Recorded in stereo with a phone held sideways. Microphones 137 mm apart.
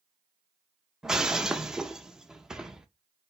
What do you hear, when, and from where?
1.0 s breaking glass: 5° right (ahead or behind), 0.6 m